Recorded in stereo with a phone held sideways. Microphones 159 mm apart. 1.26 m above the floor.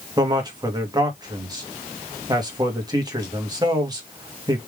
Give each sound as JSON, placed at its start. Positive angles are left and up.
{"t": 0.2, "sound": "a man speaking", "side_deg": -25, "distance_m": 1.7}